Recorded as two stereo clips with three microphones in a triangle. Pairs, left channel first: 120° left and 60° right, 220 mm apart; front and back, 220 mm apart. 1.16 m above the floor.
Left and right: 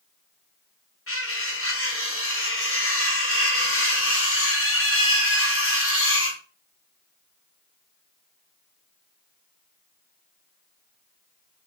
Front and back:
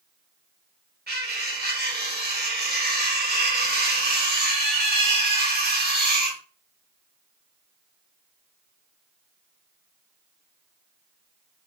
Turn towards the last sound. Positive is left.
turn(degrees=135)